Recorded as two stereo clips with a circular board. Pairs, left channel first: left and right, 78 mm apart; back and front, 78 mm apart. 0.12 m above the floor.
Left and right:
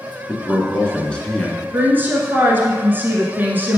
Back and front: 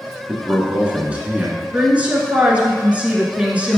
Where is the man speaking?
40° left, 1.1 m.